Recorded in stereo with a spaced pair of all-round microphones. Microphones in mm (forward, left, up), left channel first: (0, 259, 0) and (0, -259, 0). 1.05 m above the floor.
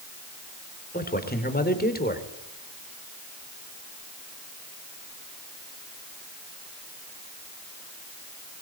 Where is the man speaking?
15° left (ahead or behind), 4 m.